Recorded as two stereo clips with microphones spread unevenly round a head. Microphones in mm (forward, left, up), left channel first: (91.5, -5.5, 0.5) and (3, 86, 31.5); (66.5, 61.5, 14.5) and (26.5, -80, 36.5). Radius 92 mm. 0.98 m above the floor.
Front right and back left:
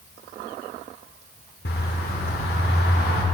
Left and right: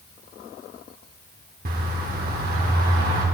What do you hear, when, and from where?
1.6 s a bird: 90° right, 1.2 m